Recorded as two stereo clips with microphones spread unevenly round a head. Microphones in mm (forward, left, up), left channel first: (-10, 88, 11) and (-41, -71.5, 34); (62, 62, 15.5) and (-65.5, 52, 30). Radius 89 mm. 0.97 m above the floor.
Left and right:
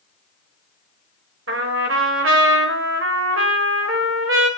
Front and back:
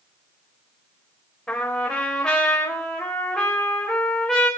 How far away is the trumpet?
About 4 m.